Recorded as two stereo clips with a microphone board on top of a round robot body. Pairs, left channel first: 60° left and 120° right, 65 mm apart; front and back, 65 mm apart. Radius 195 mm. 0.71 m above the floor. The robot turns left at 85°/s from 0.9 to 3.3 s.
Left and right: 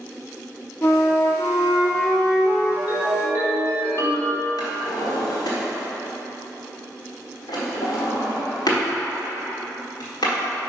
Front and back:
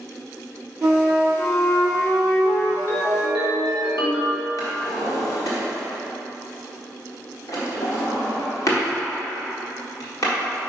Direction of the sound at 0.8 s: 115° left.